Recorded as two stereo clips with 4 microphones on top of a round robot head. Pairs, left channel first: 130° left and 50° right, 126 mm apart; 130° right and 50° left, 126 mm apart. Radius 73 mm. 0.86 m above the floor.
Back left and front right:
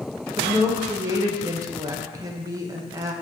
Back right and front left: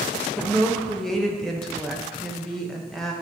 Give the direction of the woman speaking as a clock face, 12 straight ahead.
2 o'clock.